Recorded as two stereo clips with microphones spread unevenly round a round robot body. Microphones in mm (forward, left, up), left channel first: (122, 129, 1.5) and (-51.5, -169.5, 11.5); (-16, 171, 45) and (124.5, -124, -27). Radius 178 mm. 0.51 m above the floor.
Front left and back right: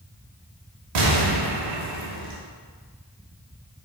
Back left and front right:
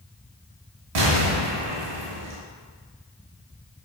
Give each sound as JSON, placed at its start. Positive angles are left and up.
{"t": 0.9, "sound": "an explosion", "azimuth_deg": -90, "distance_m": 0.8}